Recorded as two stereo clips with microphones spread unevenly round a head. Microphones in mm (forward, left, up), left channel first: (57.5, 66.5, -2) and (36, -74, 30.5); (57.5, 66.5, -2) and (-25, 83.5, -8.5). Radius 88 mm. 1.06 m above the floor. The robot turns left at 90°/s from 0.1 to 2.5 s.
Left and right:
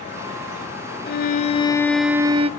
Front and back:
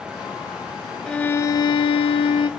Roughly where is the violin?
Left.